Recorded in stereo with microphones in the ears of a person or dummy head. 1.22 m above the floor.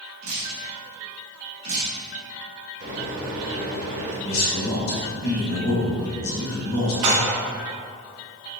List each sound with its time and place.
0.2 s dripping: 50° right (ahead or behind), 1.2 m
2.8 s a microwave: 70° right (ahead or behind), 1.8 m
4.2 s a man speaking: 70° left (ahead or behind), 1.6 m
7.0 s dishes clattering: 70° right (ahead or behind), 1.4 m